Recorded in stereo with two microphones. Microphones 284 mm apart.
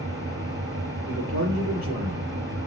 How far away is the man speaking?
About 5 m.